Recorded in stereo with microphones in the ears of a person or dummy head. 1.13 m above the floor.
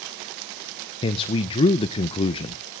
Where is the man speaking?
30° left (ahead or behind), 0.5 m.